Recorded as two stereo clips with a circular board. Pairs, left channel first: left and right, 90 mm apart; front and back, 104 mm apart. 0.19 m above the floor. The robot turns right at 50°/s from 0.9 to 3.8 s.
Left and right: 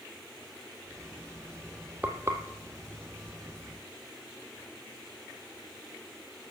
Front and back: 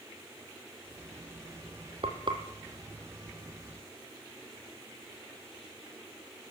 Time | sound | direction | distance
2.0 | frying | 160° right | 1.7 m